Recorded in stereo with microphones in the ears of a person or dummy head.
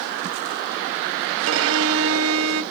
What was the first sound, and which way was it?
A violin, 75° right (ahead or behind).